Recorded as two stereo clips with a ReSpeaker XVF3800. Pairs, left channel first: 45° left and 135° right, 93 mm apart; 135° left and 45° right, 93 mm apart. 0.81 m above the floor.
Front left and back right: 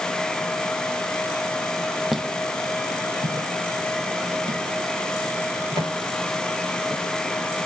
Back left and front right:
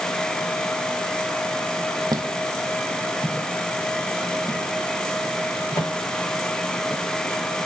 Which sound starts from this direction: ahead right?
Footsteps, at 2.1 s.